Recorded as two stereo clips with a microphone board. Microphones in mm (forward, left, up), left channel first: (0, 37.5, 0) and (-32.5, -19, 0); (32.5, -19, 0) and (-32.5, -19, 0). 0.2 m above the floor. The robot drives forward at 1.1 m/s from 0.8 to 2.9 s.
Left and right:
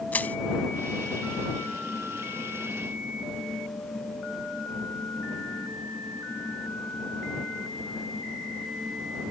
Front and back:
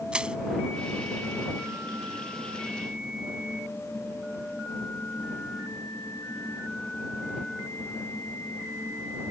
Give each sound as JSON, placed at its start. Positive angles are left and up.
{"t": 0.1, "sound": "crushing", "azimuth_deg": 110}